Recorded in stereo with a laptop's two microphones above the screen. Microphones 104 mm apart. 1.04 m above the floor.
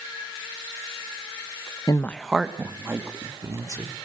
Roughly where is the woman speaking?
Left.